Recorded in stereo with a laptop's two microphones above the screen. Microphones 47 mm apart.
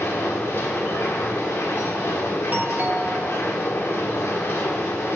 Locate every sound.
0.0 s a machine running: 90° left, 1.5 m
2.5 s a doorbell: 40° right (ahead or behind), 1.0 m